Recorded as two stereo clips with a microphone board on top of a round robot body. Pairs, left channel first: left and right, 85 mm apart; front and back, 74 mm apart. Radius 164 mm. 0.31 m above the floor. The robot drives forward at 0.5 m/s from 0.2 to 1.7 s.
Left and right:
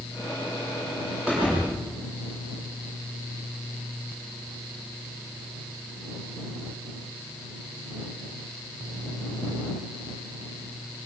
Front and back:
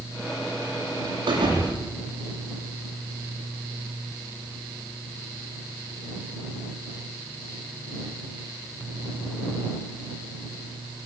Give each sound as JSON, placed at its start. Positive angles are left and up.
{"t": 1.3, "sound": "a thud", "azimuth_deg": -170, "distance_m": 9.5}